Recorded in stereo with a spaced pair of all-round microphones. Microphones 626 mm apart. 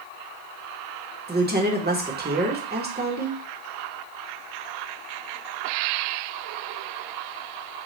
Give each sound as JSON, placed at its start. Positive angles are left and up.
{"t": 1.3, "sound": "a woman speaking", "side_deg": -15, "distance_m": 1.0}